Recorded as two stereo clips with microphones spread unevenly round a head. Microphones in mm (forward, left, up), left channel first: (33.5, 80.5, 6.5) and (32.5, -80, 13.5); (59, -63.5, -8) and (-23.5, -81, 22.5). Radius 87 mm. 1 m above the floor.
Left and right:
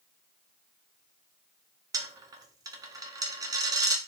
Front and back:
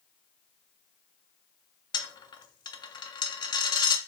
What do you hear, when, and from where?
1.9 s a dropped coin: 30° right, 0.6 m